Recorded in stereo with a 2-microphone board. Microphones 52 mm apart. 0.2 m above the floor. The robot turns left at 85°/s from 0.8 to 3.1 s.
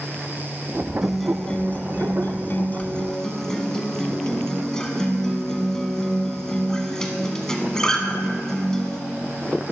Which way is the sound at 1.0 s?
165° right.